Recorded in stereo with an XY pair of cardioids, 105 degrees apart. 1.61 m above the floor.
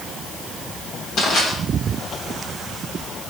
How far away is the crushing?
About 5 m.